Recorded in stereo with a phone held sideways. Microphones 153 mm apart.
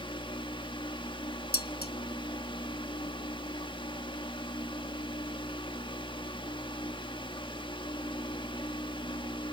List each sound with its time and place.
0.0 s a fan: 30° left (ahead or behind), 1.4 m
1.5 s dishes clattering: 75° left (ahead or behind), 1.1 m